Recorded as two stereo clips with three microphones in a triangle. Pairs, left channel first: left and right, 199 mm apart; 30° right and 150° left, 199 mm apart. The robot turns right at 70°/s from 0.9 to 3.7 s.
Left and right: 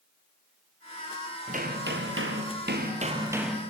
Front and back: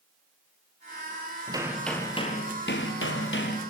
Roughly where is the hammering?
Behind right.